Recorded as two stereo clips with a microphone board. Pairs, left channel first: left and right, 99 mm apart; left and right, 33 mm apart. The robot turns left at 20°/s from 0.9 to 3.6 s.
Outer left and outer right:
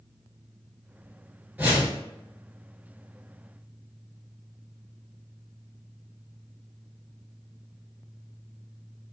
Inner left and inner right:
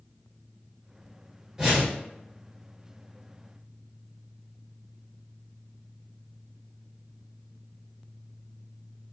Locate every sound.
1.6 s a whoosh: 15° right (ahead or behind), 1.2 m; by 2.0 s 25° right (ahead or behind), 1.2 m